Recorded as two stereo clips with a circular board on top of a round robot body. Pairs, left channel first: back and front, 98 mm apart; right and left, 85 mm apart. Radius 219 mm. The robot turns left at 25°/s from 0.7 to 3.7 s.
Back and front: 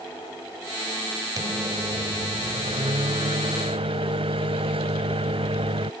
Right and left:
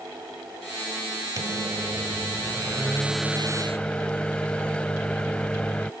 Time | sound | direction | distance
1.4 | a microwave | 45° left | ?